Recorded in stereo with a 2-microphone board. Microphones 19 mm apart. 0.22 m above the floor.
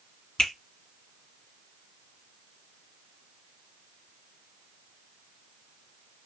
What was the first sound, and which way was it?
A finger snap, 60° left (ahead or behind).